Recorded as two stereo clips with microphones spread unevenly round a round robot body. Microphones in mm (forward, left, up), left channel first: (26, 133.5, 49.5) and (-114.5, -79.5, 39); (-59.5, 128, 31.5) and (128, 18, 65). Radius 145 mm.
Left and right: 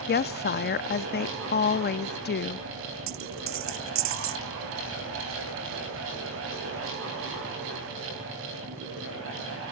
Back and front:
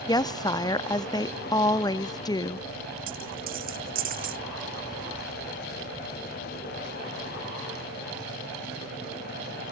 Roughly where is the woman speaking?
Left.